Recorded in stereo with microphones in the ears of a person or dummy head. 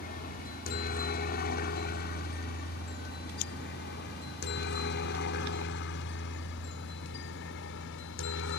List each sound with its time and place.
0.0 s a helicopter: 45° left (ahead or behind); by 8.6 s 60° left (ahead or behind)